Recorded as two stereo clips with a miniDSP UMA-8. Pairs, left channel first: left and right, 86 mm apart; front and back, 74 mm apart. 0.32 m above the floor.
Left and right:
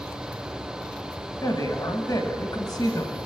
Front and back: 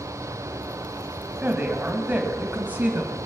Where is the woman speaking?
120° left, 1.9 m.